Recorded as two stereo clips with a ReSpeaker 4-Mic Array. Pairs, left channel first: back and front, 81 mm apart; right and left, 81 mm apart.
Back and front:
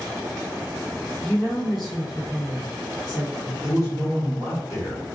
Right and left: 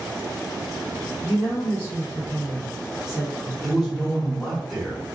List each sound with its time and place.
1.2 s a woman speaking: 100° right, 1.4 m; by 3.5 s 40° left, 1.3 m
3.6 s a man speaking: straight behind, 1.6 m